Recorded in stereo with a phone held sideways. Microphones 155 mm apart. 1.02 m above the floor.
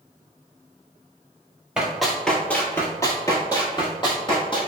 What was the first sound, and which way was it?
Running footsteps, 5° right (ahead or behind).